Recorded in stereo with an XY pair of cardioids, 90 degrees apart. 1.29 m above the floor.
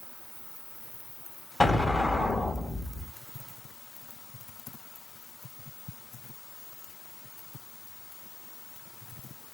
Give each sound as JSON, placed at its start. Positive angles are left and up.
{"t": 1.6, "sound": "an explosion", "azimuth_deg": 25, "distance_m": 1.1}